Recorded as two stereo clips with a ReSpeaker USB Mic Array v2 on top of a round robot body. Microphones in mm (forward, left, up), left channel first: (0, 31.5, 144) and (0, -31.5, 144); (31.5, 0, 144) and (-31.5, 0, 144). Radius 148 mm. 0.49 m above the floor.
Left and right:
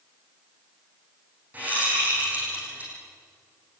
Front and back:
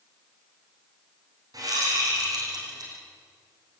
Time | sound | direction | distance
1.5 | a whoosh | 155° right | 7 m